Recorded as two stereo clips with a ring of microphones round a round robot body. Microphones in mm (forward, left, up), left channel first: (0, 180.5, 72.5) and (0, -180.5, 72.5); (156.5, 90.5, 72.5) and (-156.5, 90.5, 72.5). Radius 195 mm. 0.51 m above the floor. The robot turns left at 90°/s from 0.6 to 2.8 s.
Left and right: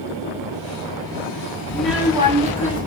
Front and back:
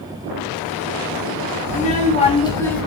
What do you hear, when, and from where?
1.7 s a child speaking: 15° left, 0.8 m; by 2.9 s 85° right, 0.8 m